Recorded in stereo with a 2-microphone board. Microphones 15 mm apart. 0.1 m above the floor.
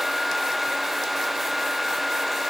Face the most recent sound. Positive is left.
No sound to turn to.